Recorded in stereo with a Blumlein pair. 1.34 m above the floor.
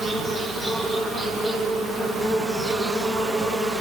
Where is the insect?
15° right, 1.8 m.